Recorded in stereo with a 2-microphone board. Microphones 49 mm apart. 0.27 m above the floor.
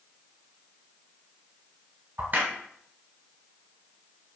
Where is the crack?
45° right (ahead or behind), 1.3 m.